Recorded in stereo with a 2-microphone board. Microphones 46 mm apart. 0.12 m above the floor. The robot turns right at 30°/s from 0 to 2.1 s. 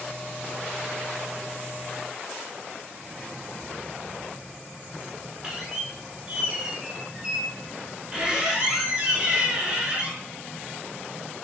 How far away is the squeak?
About 0.7 m.